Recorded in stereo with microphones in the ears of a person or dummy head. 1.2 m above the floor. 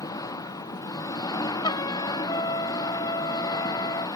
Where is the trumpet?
20° left (ahead or behind).